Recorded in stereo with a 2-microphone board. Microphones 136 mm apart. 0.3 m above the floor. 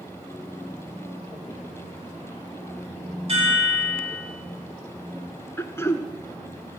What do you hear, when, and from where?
3.3 s a chime: 45° right (ahead or behind), 5.5 m
5.6 s throat clearing: 20° left (ahead or behind), 0.8 m